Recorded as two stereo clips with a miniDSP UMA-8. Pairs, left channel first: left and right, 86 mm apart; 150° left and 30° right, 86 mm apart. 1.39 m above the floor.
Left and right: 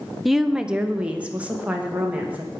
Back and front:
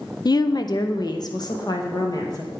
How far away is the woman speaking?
About 0.6 m.